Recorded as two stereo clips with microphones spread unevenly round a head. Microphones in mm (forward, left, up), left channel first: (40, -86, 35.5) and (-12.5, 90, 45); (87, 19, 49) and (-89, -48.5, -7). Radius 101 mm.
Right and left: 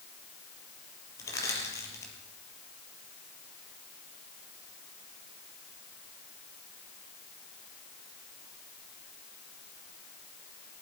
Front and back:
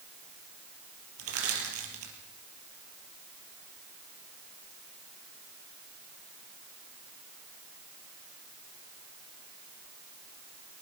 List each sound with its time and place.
1.2 s crushing: 150° right, 5 m